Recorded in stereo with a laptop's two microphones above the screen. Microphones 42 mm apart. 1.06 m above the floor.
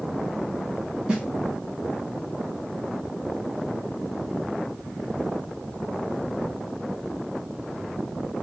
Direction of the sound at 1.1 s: 20° right (ahead or behind).